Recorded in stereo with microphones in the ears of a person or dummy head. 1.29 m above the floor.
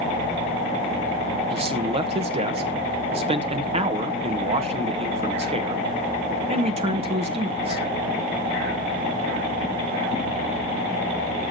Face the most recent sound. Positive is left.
turn(degrees=-35)  # may be behind; listen again after turning